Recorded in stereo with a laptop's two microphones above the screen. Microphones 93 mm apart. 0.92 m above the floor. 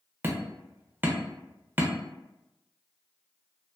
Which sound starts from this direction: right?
Hammering, at 0.2 s.